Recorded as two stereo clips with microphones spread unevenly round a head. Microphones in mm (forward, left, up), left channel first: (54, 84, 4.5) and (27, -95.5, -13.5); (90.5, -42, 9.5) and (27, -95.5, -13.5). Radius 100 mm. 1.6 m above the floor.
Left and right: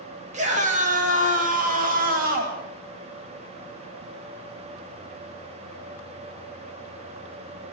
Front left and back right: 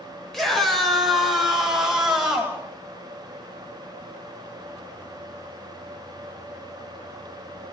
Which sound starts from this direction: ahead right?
A scream, at 0.3 s.